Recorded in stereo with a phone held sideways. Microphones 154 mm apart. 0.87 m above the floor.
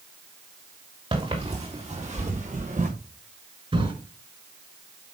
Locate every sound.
1.1 s footsteps: 35° right (ahead or behind), 4.5 m; by 2.9 s 55° right (ahead or behind), 4 m
3.7 s a drawer: 35° right (ahead or behind), 4.5 m